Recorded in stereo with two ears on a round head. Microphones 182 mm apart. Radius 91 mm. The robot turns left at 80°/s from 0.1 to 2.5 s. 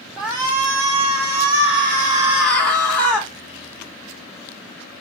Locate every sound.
0.2 s a shout: straight ahead, 1.1 m; by 3.3 s 170° left, 1.1 m